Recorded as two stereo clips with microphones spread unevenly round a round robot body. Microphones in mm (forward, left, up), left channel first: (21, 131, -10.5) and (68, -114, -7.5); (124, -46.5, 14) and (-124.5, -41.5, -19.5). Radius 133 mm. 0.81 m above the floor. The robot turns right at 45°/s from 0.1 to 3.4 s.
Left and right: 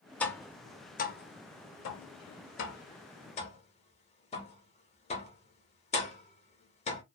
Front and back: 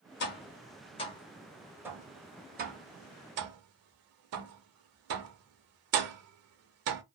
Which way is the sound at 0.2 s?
15° left.